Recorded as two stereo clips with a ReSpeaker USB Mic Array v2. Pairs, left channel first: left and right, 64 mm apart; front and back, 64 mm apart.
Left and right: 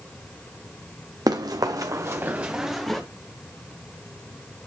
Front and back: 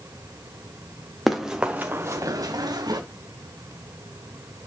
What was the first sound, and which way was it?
Running footsteps, 90° right.